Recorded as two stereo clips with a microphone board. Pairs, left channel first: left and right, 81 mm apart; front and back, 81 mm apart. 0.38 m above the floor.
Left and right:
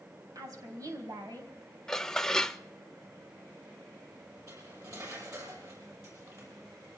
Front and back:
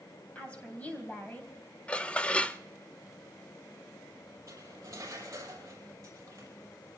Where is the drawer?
No drawer in this recording.